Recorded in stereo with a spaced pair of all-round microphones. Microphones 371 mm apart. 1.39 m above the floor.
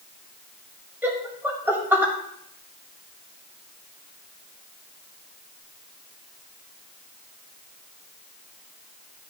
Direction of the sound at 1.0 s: 5° right (ahead or behind).